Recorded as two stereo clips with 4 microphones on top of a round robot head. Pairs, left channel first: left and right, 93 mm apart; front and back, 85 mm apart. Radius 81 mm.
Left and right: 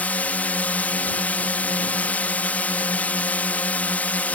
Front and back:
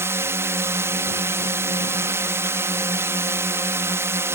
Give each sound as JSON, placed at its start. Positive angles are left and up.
{"t": 0.0, "sound": "a drone", "azimuth_deg": 150}